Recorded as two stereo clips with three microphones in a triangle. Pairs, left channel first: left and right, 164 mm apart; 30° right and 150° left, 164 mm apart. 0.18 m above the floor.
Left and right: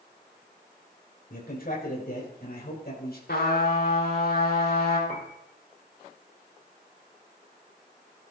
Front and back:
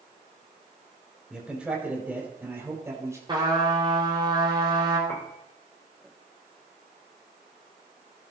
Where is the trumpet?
90° left, 5.5 m.